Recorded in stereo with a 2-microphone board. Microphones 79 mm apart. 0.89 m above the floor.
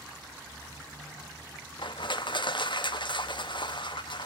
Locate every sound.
1.8 s crushing: 70° left (ahead or behind), 0.7 m